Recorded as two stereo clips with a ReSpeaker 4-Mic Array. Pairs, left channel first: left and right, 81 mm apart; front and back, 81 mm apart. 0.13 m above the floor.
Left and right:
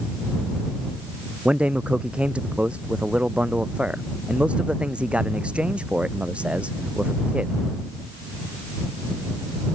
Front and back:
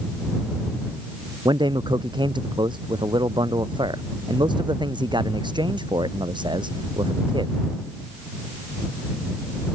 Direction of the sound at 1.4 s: 165° right.